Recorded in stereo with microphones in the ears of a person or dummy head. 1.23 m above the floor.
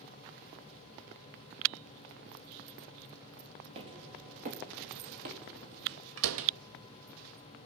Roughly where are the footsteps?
Right.